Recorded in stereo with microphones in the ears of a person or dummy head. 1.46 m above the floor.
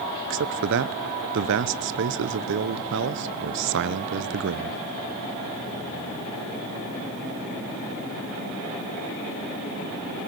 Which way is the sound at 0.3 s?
65° right (ahead or behind).